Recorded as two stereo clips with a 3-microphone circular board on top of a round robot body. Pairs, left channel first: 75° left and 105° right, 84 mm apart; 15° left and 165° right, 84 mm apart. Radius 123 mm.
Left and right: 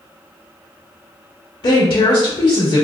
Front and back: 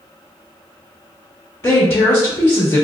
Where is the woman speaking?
70° left, 1.4 m.